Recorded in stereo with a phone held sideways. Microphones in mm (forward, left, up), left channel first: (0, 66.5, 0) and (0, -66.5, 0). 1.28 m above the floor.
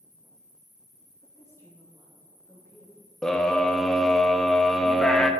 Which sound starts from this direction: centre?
A scream, at 3.2 s.